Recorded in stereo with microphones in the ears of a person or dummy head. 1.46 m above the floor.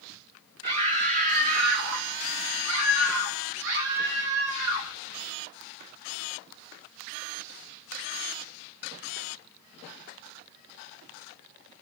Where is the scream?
25° right (ahead or behind), 0.8 m; by 5.0 s 75° right (ahead or behind), 3 m.